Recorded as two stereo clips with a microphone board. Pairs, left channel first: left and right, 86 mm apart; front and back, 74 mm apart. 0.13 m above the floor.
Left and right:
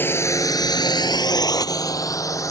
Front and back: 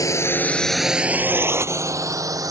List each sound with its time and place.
0.0 s a drone: 30° left; by 2.5 s 140° left